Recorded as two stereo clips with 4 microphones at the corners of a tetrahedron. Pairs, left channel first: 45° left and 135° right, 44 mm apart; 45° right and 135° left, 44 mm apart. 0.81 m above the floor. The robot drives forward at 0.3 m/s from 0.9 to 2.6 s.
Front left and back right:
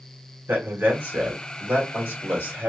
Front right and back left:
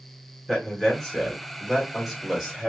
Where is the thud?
I don't hear a thud.